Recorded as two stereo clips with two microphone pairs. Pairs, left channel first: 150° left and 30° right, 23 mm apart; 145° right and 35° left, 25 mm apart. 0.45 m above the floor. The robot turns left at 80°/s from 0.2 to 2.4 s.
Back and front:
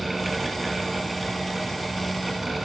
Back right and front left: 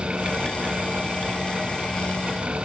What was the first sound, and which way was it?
Only background noise.